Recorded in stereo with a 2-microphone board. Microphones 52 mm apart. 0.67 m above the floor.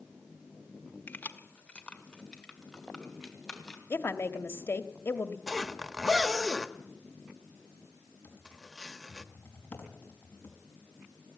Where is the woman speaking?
50° left (ahead or behind), 1.3 m.